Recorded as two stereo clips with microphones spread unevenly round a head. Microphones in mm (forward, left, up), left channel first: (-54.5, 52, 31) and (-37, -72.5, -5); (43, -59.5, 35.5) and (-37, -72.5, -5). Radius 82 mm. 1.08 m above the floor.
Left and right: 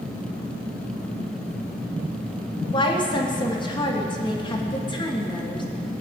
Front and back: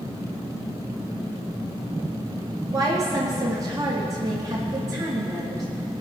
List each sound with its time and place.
2.7 s a woman speaking: 155° left, 1.9 m